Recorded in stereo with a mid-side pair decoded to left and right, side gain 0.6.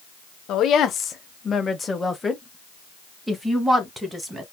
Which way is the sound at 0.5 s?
55° left.